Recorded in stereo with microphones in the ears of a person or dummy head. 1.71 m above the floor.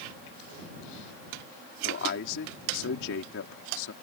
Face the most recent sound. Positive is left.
turn(degrees=75)  # may be behind; listen again after turning